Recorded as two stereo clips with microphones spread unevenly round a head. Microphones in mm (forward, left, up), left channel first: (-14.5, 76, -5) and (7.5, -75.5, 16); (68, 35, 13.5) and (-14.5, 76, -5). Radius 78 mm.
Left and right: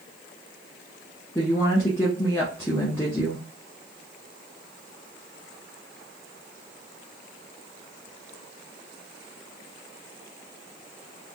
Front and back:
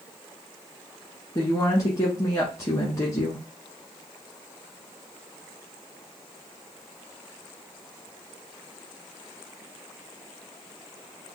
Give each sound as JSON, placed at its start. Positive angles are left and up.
{"t": 1.4, "sound": "a woman speaking", "azimuth_deg": 15, "distance_m": 1.1}